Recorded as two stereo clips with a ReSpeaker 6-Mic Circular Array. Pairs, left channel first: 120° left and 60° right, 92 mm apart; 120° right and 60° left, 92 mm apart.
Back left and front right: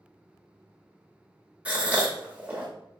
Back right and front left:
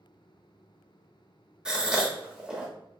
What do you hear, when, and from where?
1.6 s a gasp: 5° right, 0.8 m